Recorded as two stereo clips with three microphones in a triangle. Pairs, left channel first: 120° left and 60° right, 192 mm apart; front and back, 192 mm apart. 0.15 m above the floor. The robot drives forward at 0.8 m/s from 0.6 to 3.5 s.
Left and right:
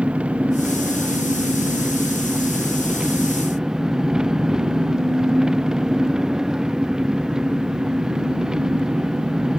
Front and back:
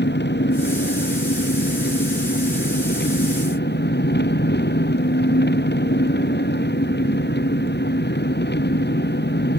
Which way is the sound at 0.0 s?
25° left.